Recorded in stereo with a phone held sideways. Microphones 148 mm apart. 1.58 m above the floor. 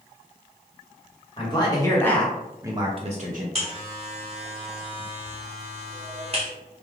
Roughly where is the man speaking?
Left.